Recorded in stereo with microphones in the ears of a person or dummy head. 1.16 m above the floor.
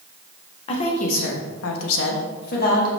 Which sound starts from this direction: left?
A woman speaking, at 0.7 s.